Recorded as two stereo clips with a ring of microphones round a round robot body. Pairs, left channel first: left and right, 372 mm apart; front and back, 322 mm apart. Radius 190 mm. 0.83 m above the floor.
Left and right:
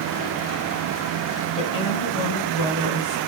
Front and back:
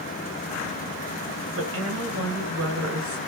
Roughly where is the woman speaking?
Behind left.